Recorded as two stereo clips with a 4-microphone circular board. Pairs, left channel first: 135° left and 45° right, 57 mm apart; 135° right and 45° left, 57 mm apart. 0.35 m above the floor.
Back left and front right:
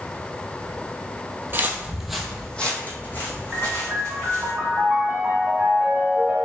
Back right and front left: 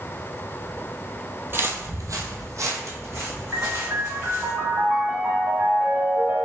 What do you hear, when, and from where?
1.5 s footsteps: straight ahead, 0.7 m; by 4.5 s 90° left, 2.5 m
3.5 s a piano: straight ahead, 0.9 m